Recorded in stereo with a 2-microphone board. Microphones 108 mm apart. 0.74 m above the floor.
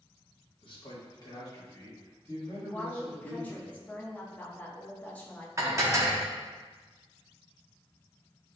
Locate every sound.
0.6 s a man speaking: 50° left (ahead or behind), 1.1 m; by 3.6 s 15° left (ahead or behind), 2.5 m
2.6 s a woman speaking: 15° left (ahead or behind), 0.8 m
5.6 s dishes clattering: 30° right (ahead or behind), 0.6 m